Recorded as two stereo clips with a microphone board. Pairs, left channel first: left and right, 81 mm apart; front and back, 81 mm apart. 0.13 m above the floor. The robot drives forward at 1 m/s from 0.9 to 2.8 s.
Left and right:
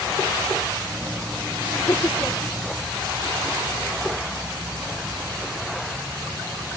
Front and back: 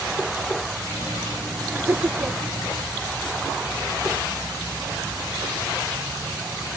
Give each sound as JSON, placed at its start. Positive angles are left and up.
{"t": 1.7, "sound": "laughter", "azimuth_deg": 130}